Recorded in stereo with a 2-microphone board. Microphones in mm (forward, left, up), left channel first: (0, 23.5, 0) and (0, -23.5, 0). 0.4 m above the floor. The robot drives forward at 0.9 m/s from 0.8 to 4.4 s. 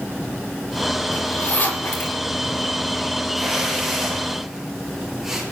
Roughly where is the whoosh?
Centre.